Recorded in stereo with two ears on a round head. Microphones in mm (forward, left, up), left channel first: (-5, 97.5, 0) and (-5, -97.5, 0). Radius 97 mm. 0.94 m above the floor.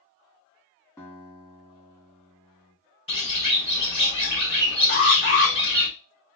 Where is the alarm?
55° left (ahead or behind), 1.9 m.